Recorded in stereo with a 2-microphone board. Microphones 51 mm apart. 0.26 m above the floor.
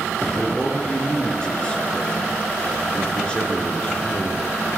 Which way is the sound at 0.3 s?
15° left (ahead or behind).